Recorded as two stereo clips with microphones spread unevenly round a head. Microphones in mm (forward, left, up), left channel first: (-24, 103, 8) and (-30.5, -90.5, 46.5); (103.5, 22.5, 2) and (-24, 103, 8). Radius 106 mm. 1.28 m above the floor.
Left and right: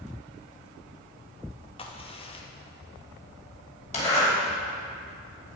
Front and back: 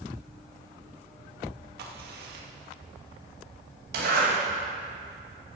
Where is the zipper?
145° left, 5.5 m.